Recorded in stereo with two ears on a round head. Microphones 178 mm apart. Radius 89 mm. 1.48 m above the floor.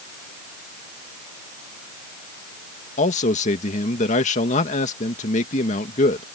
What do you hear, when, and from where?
3.0 s a man speaking: 35° left (ahead or behind)